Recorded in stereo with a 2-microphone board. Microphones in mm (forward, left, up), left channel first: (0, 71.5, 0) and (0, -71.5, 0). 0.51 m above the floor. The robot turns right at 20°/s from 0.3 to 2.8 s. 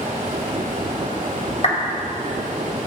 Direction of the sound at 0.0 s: 105° right.